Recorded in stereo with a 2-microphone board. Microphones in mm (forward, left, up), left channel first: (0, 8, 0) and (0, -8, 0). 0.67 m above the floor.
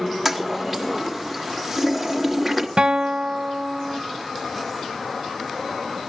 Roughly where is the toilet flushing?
Centre.